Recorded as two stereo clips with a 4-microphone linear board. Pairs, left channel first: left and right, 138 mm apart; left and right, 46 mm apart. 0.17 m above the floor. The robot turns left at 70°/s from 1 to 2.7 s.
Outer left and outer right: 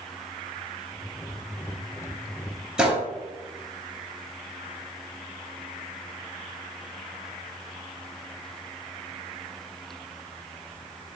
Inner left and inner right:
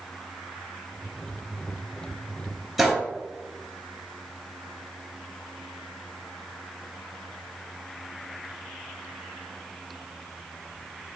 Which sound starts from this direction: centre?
A gunshot, at 2.8 s.